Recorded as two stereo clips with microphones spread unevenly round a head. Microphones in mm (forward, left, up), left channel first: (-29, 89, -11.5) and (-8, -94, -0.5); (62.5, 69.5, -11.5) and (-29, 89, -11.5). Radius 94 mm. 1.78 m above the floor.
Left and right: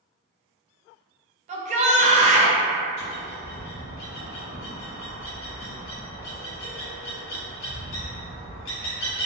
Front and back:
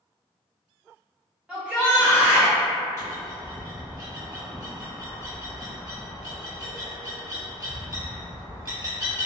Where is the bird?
115° left, 1.0 m.